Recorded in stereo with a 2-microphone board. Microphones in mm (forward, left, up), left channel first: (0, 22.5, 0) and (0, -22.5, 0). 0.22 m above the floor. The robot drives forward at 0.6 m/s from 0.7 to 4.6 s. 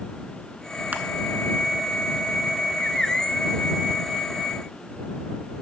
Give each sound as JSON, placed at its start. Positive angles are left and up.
{"t": 0.9, "sound": "crushing", "side_deg": -40, "distance_m": 0.7}